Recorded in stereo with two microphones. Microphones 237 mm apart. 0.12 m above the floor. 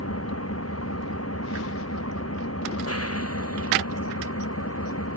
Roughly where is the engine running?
Left.